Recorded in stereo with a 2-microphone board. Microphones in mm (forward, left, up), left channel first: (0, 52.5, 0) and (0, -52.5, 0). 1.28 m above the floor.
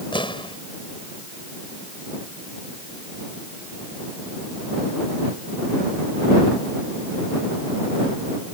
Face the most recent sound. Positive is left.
turn(degrees=55)  # may be behind; listen again after turning